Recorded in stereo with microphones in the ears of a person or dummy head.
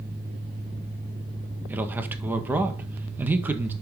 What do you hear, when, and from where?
1.7 s a man speaking: 15° right (ahead or behind), 1.8 m